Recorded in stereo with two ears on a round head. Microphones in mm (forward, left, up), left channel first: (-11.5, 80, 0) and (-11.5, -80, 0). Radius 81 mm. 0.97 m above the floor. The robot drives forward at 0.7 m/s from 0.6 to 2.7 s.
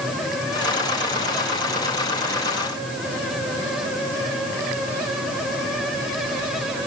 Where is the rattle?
No rattle in this recording.